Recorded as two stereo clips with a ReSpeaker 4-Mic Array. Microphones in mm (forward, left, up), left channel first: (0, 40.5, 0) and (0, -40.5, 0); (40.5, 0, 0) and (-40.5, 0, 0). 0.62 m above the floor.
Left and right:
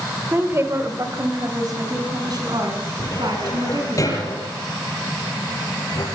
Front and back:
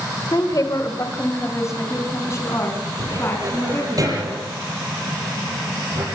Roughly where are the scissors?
No scissors in this recording.